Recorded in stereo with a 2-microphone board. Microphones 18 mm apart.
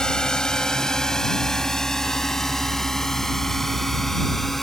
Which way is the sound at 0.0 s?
40° left (ahead or behind).